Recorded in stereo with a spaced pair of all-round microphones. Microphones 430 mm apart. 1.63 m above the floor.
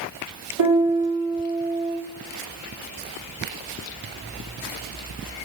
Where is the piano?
65° right (ahead or behind), 4.5 m.